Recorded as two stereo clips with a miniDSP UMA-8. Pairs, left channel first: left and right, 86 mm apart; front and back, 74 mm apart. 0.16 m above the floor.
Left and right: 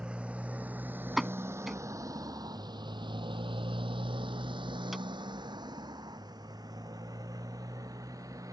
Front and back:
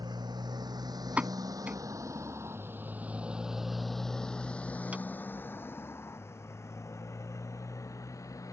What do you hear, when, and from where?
0.0 s a motorcycle: 170° right; by 8.5 s 40° right
1.2 s a pop: 175° right